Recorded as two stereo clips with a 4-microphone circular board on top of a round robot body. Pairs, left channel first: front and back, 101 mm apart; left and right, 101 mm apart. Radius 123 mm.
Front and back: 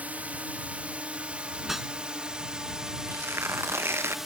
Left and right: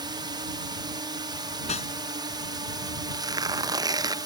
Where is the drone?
110° right; by 4.3 s 95° right.